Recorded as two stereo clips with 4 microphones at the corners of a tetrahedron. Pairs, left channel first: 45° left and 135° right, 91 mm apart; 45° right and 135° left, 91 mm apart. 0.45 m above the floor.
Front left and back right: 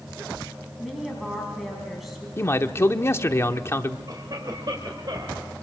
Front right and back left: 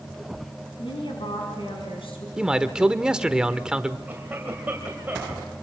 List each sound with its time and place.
0.8 s a woman speaking: 45° right, 4.5 m
2.4 s a man speaking: 65° left, 0.9 m
4.1 s a cough: 160° right, 2.5 m